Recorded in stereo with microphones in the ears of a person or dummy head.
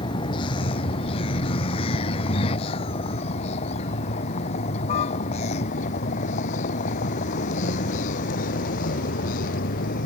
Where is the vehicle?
30° left (ahead or behind); by 10.1 s 50° left (ahead or behind).